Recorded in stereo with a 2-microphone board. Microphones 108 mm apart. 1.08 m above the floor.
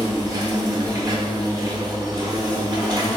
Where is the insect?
35° right (ahead or behind), 1.0 m.